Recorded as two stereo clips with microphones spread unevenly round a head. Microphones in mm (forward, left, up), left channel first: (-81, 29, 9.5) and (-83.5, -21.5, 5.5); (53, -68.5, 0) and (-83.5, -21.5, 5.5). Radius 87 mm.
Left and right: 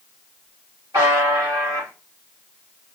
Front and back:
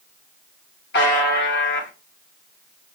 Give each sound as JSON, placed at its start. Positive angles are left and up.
{"t": 0.9, "sound": "a buzzer", "azimuth_deg": -20, "distance_m": 1.2}